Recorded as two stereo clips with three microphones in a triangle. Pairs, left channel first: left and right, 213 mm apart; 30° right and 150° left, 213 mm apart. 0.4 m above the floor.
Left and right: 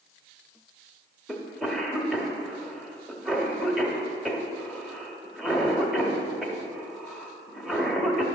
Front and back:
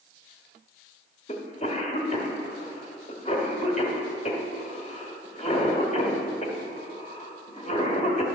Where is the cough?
Straight ahead, 1.1 m.